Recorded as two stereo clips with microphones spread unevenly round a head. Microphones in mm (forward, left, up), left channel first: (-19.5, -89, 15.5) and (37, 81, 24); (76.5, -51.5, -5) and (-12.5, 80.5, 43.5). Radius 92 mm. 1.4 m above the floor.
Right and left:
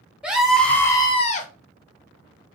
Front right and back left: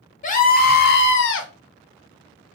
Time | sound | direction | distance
0.2 | a scream | 10° right | 0.9 m